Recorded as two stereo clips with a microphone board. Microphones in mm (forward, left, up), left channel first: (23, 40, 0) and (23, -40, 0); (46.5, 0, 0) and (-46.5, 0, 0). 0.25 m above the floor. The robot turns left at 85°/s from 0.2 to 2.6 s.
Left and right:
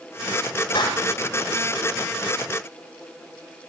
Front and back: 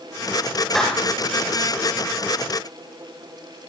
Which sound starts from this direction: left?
A clap, at 0.8 s.